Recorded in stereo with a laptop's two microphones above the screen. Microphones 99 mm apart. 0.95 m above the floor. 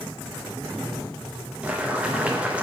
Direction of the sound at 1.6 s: 10° right (ahead or behind).